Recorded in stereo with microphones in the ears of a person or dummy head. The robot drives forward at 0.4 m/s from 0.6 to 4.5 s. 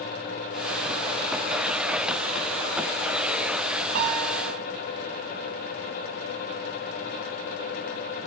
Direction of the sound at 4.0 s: 55° right (ahead or behind).